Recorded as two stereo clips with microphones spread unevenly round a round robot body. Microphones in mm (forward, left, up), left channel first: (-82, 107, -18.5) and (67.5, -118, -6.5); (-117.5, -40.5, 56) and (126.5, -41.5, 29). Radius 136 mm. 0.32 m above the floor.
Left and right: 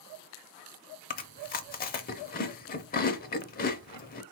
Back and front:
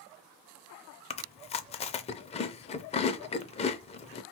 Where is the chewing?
125° left, 0.5 m.